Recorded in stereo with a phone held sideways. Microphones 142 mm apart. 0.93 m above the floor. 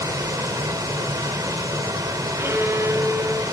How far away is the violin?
About 0.8 m.